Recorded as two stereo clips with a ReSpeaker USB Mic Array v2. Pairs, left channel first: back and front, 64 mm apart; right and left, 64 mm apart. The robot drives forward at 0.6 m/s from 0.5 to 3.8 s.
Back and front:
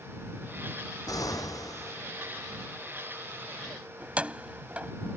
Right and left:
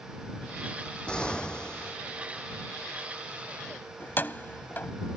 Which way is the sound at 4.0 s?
55° right.